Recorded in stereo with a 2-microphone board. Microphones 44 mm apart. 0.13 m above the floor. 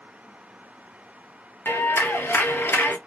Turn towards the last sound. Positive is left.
turn(degrees=60)  # may be behind; listen again after turning